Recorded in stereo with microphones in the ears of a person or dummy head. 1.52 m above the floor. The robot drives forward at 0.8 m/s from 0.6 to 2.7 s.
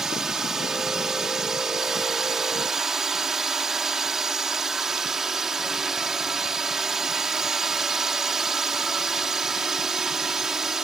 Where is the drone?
5° right (ahead or behind); by 10.8 s centre (ahead or behind).